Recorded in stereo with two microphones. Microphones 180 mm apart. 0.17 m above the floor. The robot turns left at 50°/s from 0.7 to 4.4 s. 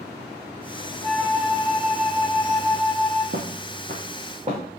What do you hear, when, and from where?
1.0 s a flute: straight ahead, 0.9 m; by 3.2 s 110° right, 0.9 m
3.3 s footsteps: 75° right (ahead or behind), 0.6 m; by 4.6 s 40° right (ahead or behind), 1.5 m